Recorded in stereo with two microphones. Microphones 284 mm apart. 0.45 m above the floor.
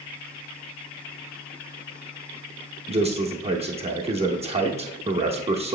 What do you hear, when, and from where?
2.9 s a man speaking: 20° right (ahead or behind), 0.8 m